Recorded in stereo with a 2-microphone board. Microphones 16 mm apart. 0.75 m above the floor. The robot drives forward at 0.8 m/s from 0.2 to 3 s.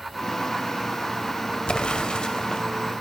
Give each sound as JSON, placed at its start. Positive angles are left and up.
{"t": 1.7, "sound": "an explosion", "side_deg": 75, "distance_m": 1.1}